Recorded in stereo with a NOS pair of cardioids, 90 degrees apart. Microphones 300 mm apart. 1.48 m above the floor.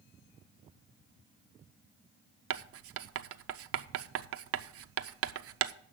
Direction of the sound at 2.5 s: 55° right.